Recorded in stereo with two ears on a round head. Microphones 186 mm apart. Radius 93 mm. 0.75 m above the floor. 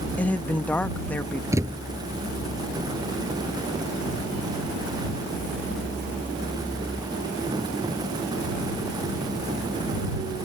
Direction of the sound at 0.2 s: 10° left (ahead or behind).